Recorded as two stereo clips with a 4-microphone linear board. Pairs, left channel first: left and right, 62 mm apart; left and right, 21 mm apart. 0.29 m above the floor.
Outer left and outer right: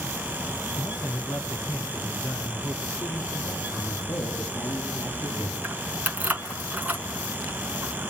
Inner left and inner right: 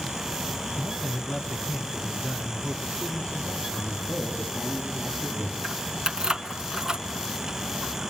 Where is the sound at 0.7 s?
45° left (ahead or behind), 2.5 m; by 3.6 s 65° left (ahead or behind), 4.5 m.